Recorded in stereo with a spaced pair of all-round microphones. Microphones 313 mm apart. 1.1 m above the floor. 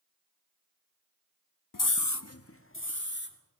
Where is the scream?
85° left, 0.7 m; by 3.4 s 35° left (ahead or behind), 2.5 m.